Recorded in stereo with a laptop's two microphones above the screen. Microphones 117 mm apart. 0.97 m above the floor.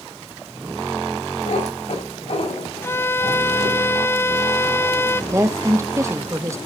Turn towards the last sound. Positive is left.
turn(degrees=-25)  # may be behind; listen again after turning